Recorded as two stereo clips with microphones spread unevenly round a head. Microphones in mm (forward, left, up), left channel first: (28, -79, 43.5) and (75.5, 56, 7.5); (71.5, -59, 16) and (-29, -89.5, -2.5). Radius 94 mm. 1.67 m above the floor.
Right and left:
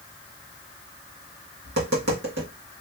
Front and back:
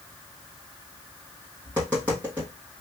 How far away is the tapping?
About 1.6 m.